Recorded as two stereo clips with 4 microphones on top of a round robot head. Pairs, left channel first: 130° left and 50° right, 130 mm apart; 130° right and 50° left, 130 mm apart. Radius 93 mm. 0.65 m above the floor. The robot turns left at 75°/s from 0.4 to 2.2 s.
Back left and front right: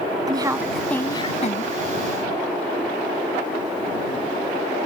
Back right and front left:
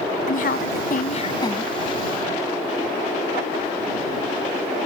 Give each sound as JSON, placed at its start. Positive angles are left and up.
{"t": 0.3, "sound": "a woman speaking", "azimuth_deg": -110}